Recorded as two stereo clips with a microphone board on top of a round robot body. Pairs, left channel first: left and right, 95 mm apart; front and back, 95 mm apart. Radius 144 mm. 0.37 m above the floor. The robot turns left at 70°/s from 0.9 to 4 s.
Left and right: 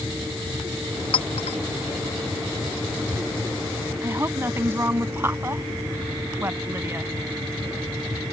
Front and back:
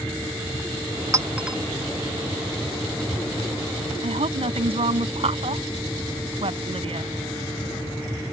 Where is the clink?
120° left; by 1.6 s 90° left.